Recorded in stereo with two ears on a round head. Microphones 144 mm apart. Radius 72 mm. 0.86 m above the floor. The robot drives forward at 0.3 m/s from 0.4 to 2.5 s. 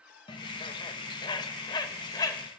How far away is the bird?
About 0.8 m.